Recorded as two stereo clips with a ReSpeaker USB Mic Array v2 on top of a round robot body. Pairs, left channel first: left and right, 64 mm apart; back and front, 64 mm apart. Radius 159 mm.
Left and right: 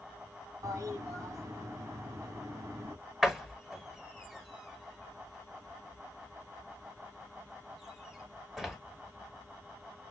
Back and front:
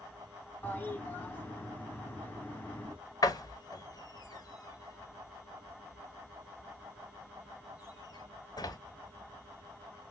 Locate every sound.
0.6 s a toilet flushing: 120° right, 2.5 m
3.2 s a door slam: 175° right, 1.9 m